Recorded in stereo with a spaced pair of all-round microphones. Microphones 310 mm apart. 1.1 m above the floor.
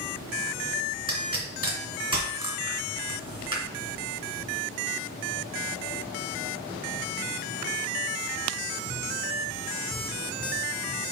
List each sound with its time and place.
1.1 s a pop: 15° right (ahead or behind), 2.5 m